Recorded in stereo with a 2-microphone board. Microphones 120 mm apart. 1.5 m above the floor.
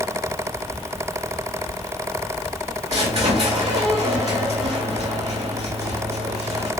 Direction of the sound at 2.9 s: 60° right (ahead or behind).